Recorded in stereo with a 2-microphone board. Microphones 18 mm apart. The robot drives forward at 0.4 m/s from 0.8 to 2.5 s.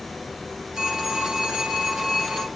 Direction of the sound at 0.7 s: 75° right (ahead or behind).